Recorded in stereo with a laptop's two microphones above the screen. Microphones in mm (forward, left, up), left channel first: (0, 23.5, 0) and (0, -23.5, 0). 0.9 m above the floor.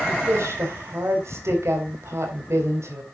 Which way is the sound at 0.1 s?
85° right.